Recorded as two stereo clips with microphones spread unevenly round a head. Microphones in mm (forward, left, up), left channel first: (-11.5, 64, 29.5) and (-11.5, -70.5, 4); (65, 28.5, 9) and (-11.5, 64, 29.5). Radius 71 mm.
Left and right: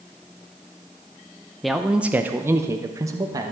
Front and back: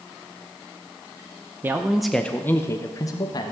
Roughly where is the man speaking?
Behind right.